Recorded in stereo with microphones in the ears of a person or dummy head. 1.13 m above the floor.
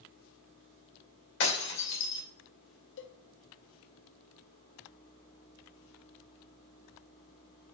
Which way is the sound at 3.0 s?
65° left (ahead or behind).